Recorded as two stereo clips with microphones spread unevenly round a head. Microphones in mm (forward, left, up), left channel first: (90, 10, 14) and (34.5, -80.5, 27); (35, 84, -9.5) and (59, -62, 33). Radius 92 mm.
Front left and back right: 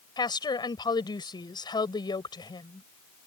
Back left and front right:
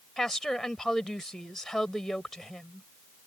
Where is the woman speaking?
10° left.